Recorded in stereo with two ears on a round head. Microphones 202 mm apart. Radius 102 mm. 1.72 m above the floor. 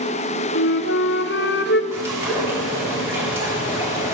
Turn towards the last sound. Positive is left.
turn(degrees=-10)  # may be behind; listen again after turning